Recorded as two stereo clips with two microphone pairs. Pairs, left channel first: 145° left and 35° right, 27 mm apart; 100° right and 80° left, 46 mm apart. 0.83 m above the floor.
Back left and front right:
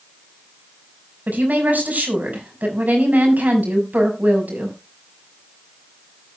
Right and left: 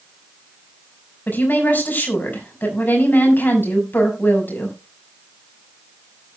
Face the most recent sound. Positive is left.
turn(degrees=-55)